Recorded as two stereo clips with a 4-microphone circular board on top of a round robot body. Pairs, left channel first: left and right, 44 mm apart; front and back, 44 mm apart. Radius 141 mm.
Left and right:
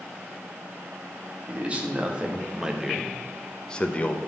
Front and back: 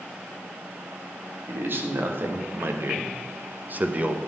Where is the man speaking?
145° right, 2 m; by 4.2 s 130° left, 1.2 m.